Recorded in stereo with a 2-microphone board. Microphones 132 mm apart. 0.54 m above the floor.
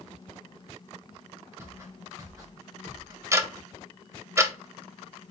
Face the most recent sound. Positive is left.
turn(degrees=-20)  # may be behind; listen again after turning